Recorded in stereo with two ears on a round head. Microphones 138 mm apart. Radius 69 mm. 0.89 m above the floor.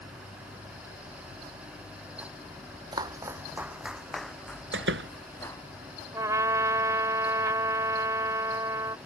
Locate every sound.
2.9 s footsteps: 30° right (ahead or behind); by 5.6 s 15° left (ahead or behind)
4.7 s a door slam: 90° right
6.1 s a trumpet: 20° right (ahead or behind)